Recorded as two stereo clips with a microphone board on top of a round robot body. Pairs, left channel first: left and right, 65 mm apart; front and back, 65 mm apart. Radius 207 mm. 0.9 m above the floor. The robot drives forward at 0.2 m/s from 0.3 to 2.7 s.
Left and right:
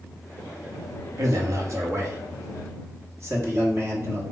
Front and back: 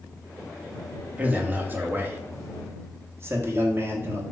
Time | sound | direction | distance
1.2 | a man speaking | 115° right | 1.1 m